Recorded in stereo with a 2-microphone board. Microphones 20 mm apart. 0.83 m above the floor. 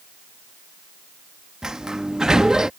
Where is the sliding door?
35° right (ahead or behind).